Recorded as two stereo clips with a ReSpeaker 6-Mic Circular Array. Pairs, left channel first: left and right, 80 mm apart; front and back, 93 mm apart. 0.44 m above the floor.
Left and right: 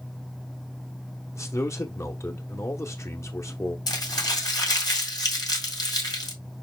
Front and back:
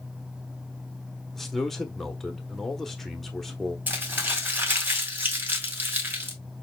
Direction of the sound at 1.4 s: 85° left.